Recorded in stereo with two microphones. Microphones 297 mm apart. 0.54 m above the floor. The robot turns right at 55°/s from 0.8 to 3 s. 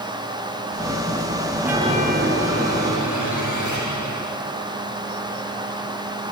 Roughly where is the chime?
Behind.